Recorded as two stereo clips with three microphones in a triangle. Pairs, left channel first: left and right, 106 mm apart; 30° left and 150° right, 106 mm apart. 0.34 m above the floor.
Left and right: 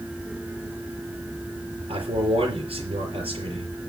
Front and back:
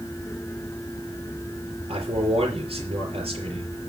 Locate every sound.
1.9 s a man speaking: 115° right, 5.5 m